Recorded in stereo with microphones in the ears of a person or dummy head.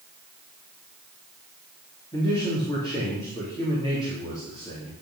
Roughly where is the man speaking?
Centre.